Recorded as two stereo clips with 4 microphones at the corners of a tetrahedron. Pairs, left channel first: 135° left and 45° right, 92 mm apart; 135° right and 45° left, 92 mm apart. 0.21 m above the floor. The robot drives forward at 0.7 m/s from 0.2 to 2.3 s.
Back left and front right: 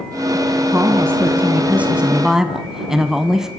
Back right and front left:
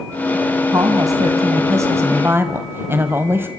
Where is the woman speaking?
10° left, 2 m; by 3.5 s 30° left, 1.4 m.